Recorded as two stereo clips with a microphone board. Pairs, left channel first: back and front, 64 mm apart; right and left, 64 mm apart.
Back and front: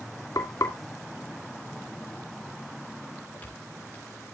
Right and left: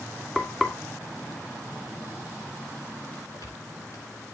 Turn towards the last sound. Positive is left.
turn(degrees=-120)